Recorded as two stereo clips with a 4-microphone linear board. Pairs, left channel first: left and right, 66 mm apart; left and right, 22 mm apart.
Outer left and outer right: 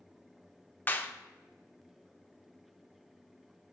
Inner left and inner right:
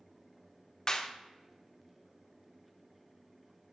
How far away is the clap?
About 0.5 m.